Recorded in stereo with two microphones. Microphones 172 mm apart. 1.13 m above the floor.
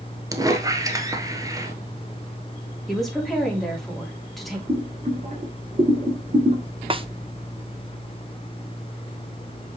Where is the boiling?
45° right (ahead or behind), 1.9 m.